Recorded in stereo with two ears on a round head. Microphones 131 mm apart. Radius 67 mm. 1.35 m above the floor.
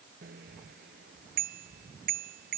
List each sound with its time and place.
0.2 s a bicycle bell: 70° right (ahead or behind)